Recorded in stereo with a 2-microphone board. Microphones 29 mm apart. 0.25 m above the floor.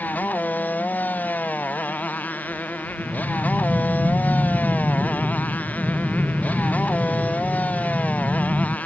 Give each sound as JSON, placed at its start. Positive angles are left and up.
{"t": 0.0, "sound": "a motorcycle", "side_deg": 80}
{"t": 3.0, "sound": "breathing", "side_deg": 20}